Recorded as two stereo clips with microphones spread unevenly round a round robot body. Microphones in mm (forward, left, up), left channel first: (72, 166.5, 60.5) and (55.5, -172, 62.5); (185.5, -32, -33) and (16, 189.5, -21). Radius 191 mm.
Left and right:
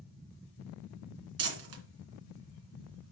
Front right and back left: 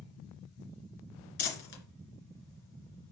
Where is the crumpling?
65° right, 3 m.